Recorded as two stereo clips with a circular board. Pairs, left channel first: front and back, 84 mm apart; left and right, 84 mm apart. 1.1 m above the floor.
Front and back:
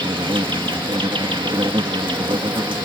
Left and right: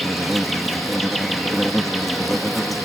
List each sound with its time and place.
0.0 s an insect: straight behind